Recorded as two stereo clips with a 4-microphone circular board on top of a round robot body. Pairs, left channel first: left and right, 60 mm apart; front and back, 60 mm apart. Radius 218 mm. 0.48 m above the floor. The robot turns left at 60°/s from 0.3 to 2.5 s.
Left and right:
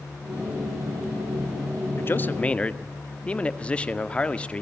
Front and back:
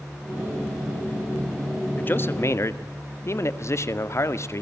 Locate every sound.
2.0 s a man speaking: 55° left, 1.9 m; by 4.6 s 25° left, 1.9 m